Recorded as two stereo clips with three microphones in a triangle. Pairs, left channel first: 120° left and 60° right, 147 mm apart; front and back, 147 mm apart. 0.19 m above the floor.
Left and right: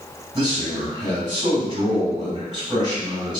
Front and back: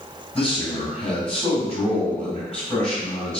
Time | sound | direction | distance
0.3 | a man speaking | 75° right | 1.7 m